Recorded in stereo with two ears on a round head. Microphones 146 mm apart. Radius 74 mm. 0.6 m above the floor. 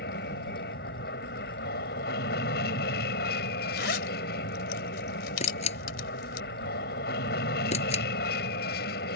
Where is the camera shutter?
45° left (ahead or behind).